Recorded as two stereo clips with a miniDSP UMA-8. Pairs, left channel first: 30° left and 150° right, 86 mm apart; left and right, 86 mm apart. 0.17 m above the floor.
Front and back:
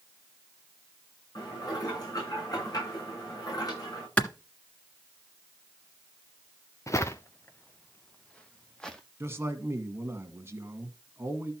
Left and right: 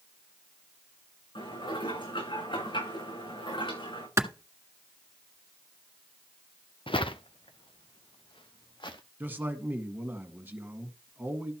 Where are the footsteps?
80° left, 1.2 m; by 9.0 s 110° left, 2.5 m.